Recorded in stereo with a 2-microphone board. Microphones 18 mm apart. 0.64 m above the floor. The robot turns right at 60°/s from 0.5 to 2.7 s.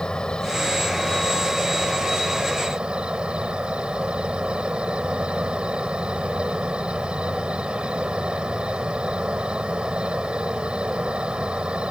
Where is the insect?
130° left; by 11.9 s 100° right.